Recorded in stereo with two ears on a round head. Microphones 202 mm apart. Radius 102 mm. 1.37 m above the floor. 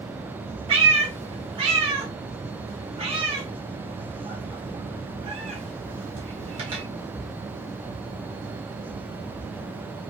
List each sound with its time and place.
0.7 s a cat meowing: 25° right (ahead or behind), 0.6 m